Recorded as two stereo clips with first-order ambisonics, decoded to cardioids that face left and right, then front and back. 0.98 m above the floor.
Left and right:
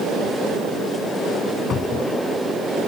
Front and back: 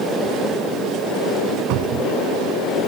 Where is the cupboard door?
155° left.